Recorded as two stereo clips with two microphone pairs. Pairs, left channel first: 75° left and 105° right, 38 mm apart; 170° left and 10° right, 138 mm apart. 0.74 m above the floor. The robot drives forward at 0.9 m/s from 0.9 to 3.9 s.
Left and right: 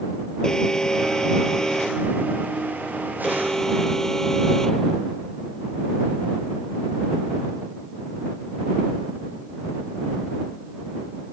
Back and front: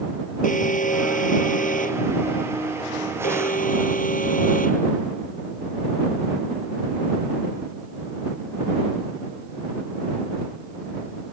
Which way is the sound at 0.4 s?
150° left.